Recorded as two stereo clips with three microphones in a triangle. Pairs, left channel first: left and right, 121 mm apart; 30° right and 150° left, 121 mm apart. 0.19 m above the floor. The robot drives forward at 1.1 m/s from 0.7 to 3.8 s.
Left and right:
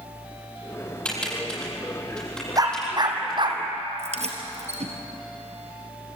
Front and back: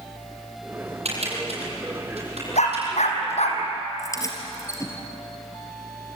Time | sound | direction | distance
1.1 | typing on a keyboard | 170° left | 6.5 m
2.6 | a dog barking | 35° right | 3.5 m
4.0 | keys jangling | 90° right | 3 m